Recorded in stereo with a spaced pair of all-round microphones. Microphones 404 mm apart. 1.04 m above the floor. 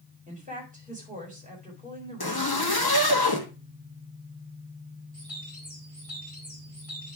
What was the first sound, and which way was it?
A woman speaking, 20° right (ahead or behind).